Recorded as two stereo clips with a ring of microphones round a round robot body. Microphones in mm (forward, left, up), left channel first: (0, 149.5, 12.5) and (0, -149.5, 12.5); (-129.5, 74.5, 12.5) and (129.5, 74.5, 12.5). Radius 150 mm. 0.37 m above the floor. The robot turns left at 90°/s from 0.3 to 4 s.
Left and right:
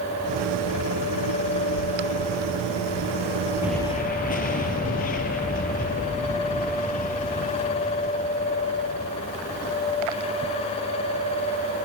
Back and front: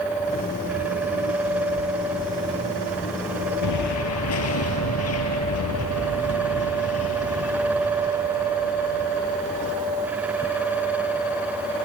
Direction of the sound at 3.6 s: 170° right.